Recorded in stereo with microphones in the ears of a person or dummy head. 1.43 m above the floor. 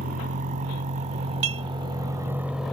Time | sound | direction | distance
0.0 | a vehicle | 35° right (ahead or behind) | ?
1.4 | dishes clattering | 75° right (ahead or behind) | ?